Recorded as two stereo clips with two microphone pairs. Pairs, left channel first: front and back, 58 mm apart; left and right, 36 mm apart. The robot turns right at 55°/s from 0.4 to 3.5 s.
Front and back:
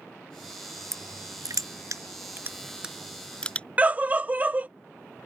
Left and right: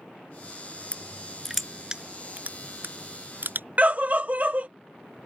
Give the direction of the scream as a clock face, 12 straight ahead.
4 o'clock.